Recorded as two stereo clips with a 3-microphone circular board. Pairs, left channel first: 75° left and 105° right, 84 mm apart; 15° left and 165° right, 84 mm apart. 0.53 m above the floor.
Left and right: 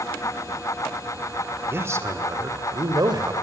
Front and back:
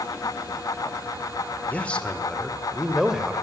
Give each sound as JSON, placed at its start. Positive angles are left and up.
{"t": 1.7, "sound": "a man speaking", "azimuth_deg": -50, "distance_m": 2.0}